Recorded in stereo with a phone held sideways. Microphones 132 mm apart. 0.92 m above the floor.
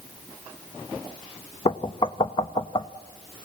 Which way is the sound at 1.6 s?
40° left (ahead or behind).